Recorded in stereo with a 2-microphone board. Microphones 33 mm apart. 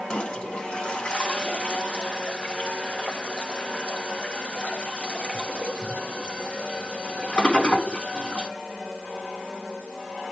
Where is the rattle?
No rattle in this recording.